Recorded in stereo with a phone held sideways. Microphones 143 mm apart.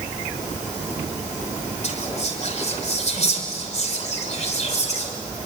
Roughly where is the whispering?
Left.